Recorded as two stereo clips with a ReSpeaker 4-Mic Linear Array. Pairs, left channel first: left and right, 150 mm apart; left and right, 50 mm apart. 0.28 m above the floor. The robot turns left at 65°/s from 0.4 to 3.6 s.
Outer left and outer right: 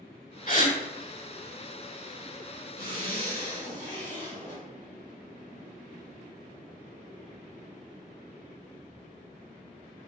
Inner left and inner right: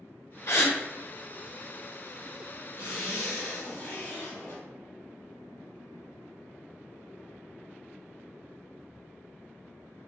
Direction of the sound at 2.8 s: 120° left.